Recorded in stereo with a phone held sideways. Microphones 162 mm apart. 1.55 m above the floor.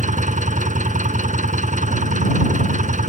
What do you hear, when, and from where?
0.0 s an engine running: 50° right (ahead or behind)